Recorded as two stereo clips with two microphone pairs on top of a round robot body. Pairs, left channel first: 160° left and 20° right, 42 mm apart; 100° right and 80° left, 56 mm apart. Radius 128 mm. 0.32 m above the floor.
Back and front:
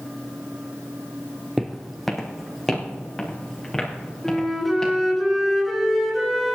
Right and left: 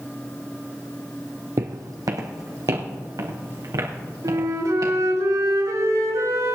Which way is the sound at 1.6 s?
65° left.